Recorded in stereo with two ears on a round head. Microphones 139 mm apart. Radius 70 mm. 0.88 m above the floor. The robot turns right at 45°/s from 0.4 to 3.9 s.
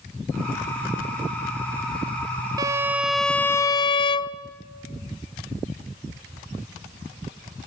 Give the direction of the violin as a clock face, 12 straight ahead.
1 o'clock.